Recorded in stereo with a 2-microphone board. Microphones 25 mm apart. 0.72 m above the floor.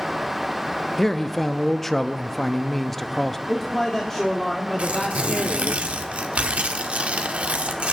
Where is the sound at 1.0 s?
10° left (ahead or behind), 0.5 m.